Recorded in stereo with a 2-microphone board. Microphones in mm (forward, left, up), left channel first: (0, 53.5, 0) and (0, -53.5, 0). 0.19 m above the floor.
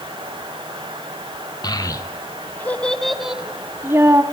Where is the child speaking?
40° left (ahead or behind), 1.4 m; by 4.2 s 30° right (ahead or behind), 1.3 m.